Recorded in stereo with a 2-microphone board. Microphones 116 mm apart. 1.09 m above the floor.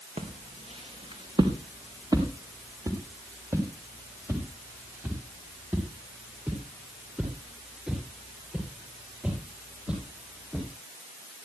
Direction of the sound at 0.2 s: 60° right (ahead or behind).